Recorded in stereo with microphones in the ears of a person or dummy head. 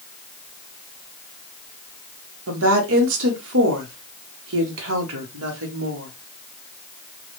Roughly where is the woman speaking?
Right.